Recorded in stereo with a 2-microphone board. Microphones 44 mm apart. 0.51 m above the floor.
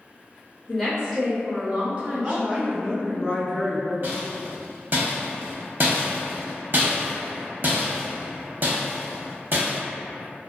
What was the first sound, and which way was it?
A woman speaking, centre (ahead or behind).